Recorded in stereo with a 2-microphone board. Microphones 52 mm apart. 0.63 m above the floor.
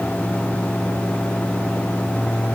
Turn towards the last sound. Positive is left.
No sound to turn to.